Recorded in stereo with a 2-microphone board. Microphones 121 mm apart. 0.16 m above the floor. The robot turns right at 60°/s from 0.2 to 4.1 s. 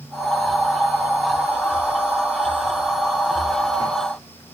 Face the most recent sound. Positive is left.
No sound to turn to.